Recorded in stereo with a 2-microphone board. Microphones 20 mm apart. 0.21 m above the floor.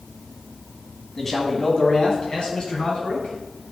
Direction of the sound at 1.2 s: 15° left (ahead or behind).